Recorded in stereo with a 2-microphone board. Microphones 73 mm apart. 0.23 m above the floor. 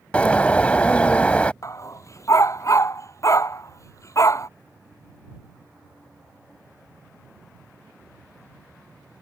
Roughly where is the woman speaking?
I don't hear a woman speaking.